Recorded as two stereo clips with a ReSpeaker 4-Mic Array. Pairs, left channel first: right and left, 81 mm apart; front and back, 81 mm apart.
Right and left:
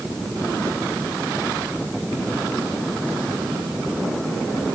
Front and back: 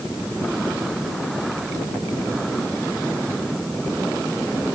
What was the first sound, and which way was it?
Only background noise.